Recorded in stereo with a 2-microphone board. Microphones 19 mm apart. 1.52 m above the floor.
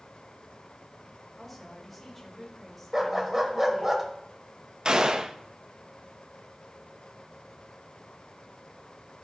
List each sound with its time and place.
1.4 s a woman speaking: 10° left (ahead or behind), 3 m
2.9 s a dog barking: 15° right (ahead or behind), 1.4 m
4.8 s a gunshot: 40° right (ahead or behind), 0.6 m